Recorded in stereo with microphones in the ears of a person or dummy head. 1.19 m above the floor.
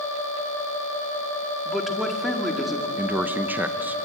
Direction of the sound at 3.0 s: 10° right (ahead or behind).